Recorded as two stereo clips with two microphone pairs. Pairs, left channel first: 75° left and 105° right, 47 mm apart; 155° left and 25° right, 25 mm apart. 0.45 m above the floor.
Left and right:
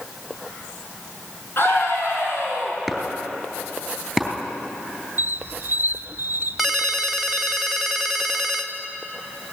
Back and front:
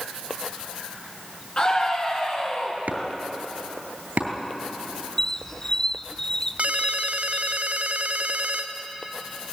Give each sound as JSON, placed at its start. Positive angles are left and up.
{"t": 1.6, "sound": "a scream", "azimuth_deg": 110, "distance_m": 6.0}
{"t": 2.9, "sound": "chopping", "azimuth_deg": -15, "distance_m": 3.5}
{"t": 5.2, "sound": "a squeak", "azimuth_deg": -140, "distance_m": 0.7}
{"t": 6.6, "sound": "a ringtone", "azimuth_deg": -20, "distance_m": 1.4}